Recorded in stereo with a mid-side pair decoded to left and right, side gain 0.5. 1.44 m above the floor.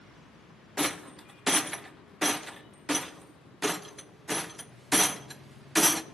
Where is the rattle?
5° right, 0.6 m.